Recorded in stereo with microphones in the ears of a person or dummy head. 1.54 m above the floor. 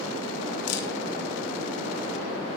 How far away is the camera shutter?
About 2.5 m.